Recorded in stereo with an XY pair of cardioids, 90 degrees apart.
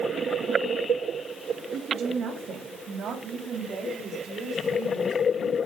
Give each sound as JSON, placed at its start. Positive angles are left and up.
{"t": 1.7, "sound": "a woman speaking", "azimuth_deg": -65, "distance_m": 5.5}